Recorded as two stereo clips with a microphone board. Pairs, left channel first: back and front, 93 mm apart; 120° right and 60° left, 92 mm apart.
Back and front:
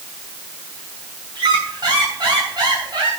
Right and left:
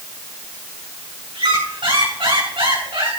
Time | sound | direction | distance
1.4 | a squeak | 40° left | 6.5 m